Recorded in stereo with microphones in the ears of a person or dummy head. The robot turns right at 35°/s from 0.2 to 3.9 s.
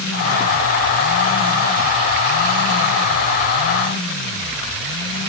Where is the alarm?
No alarm in this recording.